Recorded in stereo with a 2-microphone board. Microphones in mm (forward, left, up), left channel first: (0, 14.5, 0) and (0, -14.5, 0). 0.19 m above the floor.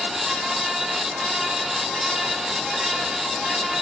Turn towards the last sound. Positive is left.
No sound to turn to.